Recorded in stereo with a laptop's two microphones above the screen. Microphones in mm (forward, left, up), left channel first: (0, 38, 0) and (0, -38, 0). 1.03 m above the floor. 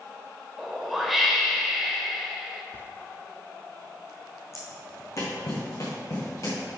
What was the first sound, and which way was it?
A whoosh, centre (ahead or behind).